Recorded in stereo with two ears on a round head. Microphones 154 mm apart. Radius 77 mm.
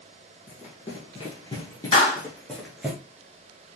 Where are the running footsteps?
45° left (ahead or behind), 1.5 m; by 2.9 s 5° right (ahead or behind), 1.2 m.